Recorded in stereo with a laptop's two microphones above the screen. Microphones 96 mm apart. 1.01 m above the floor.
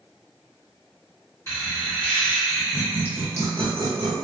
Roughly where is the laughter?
Left.